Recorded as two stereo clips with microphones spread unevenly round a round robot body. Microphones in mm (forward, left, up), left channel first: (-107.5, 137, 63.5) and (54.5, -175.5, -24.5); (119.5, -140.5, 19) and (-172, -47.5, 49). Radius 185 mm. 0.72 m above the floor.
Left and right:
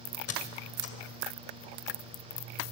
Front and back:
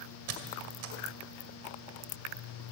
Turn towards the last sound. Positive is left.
turn(degrees=170)